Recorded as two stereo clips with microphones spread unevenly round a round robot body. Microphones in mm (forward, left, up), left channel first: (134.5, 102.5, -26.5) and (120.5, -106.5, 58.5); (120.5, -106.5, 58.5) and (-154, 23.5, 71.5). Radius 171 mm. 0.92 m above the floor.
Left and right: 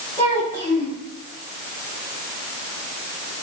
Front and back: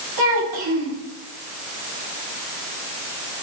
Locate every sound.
0.2 s a child speaking: 170° left, 4 m